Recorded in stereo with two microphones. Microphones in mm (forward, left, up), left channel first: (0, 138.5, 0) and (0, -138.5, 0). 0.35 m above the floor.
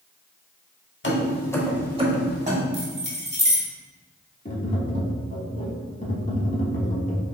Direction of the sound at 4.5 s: 30° left (ahead or behind).